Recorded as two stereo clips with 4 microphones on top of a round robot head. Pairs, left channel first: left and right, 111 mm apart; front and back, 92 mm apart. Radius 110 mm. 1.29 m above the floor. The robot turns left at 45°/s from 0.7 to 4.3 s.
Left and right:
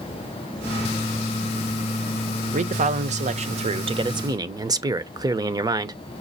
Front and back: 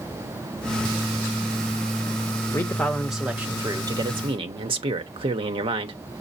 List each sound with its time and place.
2.5 s a man speaking: 65° right, 0.8 m; by 6.0 s 145° right, 0.8 m